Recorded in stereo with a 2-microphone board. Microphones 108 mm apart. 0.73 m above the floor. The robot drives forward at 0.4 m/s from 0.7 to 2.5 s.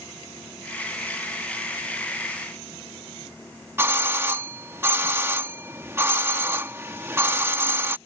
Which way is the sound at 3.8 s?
20° right (ahead or behind).